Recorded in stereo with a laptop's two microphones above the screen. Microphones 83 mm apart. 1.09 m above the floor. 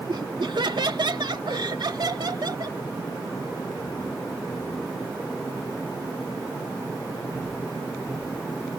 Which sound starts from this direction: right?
Laughter, at 0.1 s.